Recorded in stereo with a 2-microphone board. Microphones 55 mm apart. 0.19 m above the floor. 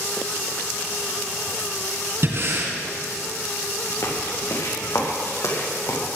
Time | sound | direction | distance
2.2 | breathing | 50° right (ahead or behind) | 2.5 m
4.0 | footsteps | 70° left (ahead or behind) | 4.5 m